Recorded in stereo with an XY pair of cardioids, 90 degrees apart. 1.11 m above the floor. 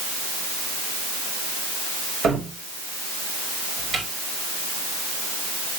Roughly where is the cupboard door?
Ahead right.